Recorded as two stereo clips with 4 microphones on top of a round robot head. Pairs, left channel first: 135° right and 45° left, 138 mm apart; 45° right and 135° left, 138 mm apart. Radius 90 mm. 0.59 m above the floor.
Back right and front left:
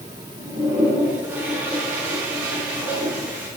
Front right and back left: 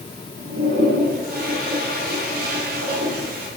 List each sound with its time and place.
0.4 s a toilet flushing: 125° left, 4.5 m